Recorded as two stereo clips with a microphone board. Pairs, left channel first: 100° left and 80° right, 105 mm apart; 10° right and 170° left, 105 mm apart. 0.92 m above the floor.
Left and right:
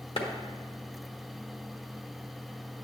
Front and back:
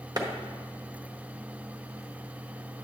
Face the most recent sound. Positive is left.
turn(degrees=120)